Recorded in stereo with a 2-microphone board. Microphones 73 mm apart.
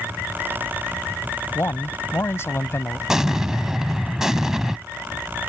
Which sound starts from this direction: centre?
An explosion, at 3.1 s.